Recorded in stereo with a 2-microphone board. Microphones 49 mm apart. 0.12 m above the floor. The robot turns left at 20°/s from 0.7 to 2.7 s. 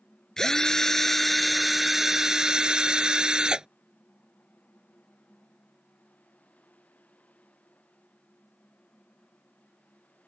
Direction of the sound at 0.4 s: 15° left.